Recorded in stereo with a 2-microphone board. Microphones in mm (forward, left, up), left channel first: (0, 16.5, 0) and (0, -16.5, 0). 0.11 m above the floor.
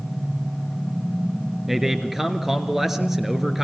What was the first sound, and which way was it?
A man speaking, 10° right (ahead or behind).